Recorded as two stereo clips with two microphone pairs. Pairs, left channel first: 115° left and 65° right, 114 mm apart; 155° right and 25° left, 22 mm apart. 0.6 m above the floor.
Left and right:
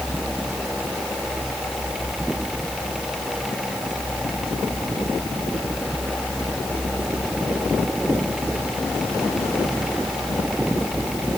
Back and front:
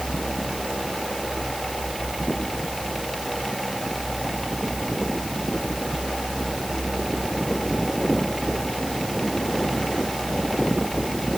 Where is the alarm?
No alarm in this recording.